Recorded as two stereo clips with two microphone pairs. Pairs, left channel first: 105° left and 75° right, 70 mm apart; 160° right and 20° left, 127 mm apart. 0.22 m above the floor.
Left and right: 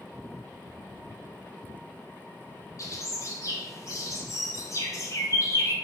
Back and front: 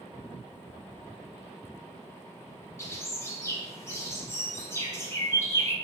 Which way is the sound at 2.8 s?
135° left.